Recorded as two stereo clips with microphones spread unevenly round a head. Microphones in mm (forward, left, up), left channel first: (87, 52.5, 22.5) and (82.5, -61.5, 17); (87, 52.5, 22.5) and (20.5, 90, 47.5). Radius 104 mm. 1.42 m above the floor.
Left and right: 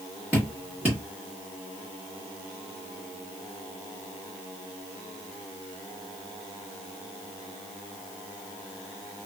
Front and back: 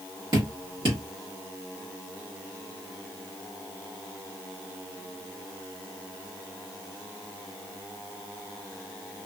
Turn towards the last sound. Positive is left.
turn(degrees=-175)